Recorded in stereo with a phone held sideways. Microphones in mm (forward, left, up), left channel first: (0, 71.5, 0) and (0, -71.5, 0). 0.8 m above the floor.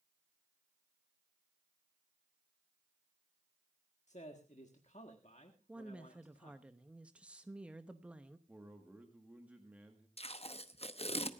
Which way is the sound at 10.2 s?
45° left (ahead or behind).